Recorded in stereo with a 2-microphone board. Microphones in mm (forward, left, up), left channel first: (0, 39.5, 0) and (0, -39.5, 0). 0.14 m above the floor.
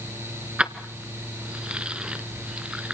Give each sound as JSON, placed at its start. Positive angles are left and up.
{"t": 0.6, "sound": "keys jangling", "side_deg": -15, "distance_m": 1.1}